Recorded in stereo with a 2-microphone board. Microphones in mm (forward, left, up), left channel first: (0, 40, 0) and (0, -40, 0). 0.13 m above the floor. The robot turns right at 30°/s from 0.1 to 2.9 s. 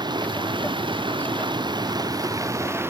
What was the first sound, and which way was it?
Running water, 115° right.